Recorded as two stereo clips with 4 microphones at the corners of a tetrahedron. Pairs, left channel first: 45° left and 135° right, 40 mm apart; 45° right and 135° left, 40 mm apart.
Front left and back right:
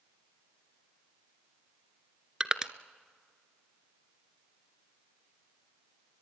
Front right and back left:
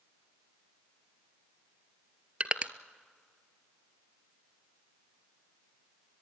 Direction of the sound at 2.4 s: 165° left.